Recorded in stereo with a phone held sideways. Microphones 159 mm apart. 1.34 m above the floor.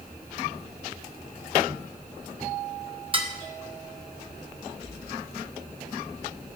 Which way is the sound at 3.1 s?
35° right (ahead or behind).